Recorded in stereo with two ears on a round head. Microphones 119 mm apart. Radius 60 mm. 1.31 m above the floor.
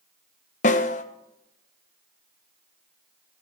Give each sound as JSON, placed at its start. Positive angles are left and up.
{"t": 0.6, "sound": "a snare drum", "side_deg": 60, "distance_m": 1.0}